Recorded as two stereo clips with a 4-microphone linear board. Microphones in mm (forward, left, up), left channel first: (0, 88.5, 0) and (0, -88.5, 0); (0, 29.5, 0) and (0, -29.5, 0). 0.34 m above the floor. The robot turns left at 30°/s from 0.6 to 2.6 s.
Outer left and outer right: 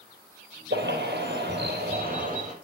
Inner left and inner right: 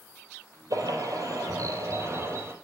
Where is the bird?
85° right, 4.5 m; by 2.5 s 140° right, 4.5 m.